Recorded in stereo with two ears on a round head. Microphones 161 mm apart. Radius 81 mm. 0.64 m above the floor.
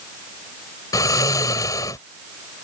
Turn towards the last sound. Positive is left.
turn(degrees=20)  # may be behind; listen again after turning